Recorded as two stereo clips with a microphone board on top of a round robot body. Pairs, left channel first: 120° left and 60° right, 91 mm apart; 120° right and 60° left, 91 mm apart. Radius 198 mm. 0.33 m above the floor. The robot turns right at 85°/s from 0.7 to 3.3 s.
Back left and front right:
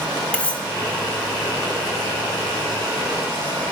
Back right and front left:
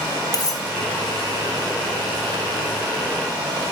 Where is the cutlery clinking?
165° right, 3 m.